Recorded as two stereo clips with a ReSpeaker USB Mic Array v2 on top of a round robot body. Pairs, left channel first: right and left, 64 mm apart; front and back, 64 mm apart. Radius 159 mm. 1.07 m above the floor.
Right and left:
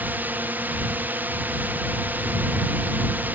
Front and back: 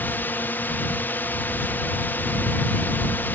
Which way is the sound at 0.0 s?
45° left.